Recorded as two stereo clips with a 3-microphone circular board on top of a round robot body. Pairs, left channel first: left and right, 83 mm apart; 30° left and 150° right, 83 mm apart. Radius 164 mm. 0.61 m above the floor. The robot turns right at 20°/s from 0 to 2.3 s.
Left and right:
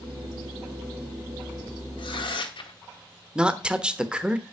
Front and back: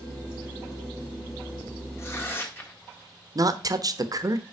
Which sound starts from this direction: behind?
A woman speaking, at 3.4 s.